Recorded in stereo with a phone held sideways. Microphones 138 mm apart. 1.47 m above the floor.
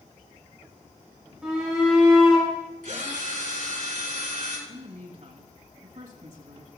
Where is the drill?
80° right, 4 m.